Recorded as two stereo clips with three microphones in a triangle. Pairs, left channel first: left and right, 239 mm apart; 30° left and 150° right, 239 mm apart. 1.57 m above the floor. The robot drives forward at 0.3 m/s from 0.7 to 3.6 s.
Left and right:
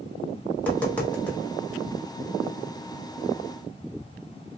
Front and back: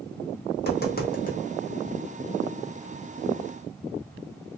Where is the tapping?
10° left, 1.0 m.